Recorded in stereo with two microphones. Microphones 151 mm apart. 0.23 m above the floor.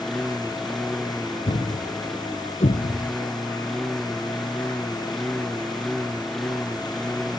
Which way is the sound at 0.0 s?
Centre (ahead or behind).